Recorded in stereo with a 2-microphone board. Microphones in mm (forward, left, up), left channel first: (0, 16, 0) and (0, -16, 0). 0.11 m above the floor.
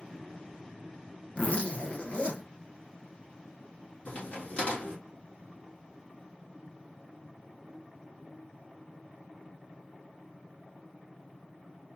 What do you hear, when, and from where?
1.4 s a zipper: 40° left (ahead or behind), 1.4 m
4.0 s a crack: 50° left (ahead or behind), 3 m